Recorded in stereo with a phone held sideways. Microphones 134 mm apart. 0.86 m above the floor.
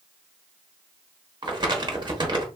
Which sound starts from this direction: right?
Crumpling, at 1.4 s.